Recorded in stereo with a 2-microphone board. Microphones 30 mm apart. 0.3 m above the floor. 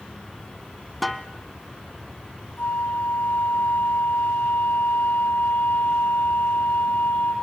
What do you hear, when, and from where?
1.0 s a snare drum: 5° left (ahead or behind), 1.0 m
2.6 s a flute: 75° left (ahead or behind), 5 m